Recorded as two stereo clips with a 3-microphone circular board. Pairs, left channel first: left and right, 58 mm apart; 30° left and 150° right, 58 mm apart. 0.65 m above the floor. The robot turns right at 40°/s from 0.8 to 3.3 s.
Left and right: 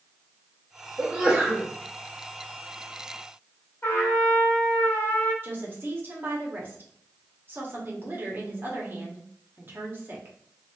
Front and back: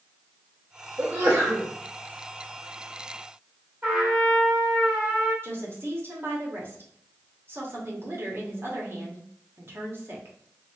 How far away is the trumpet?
About 1.7 m.